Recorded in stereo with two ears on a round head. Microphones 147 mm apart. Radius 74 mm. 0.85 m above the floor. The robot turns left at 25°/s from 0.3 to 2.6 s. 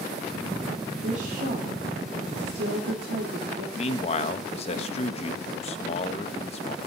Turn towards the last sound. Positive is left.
turn(degrees=40)  # may be behind; listen again after turning